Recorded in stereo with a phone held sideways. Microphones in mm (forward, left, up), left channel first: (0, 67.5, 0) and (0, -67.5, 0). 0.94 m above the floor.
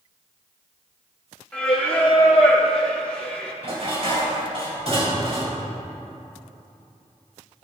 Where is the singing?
10° left (ahead or behind), 2.0 m.